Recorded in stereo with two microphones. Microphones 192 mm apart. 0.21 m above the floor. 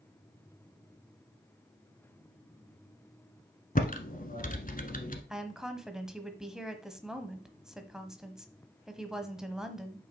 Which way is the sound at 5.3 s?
5° right (ahead or behind).